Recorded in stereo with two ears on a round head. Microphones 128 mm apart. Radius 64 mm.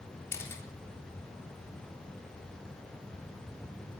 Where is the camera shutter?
20° left (ahead or behind), 3.5 m.